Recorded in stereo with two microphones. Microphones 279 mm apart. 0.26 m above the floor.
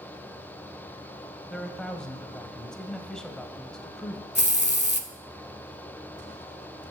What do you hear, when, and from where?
1.5 s a man speaking: 5° left (ahead or behind), 1.0 m
4.3 s a hiss: 35° left (ahead or behind), 0.8 m